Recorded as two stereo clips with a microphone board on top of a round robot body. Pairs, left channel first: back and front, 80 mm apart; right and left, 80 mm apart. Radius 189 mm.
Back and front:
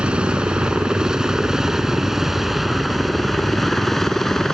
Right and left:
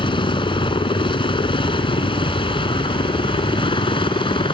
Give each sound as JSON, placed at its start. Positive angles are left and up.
{"t": 0.0, "sound": "a helicopter", "azimuth_deg": -80}